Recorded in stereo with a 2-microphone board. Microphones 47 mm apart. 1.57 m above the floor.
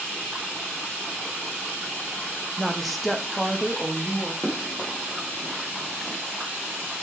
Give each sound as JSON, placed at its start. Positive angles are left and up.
{"t": 2.6, "sound": "a woman speaking", "side_deg": 0, "distance_m": 1.6}
{"t": 4.4, "sound": "running footsteps", "side_deg": 5, "distance_m": 5.0}